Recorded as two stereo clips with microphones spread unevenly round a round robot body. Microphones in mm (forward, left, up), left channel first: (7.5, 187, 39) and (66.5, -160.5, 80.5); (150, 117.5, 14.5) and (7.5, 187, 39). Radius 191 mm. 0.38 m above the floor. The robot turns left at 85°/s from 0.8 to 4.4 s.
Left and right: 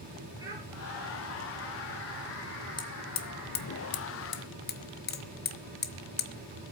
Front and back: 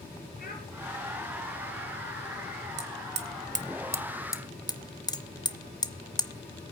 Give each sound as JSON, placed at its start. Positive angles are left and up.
{"t": 0.4, "sound": "a child speaking", "azimuth_deg": -5, "distance_m": 6.0}
{"t": 2.8, "sound": "hammering", "azimuth_deg": 175, "distance_m": 1.3}